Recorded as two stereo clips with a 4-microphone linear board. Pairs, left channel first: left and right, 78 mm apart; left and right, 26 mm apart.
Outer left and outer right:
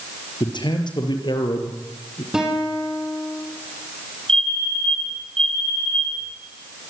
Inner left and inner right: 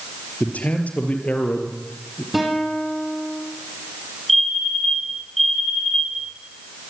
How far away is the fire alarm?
About 6.5 m.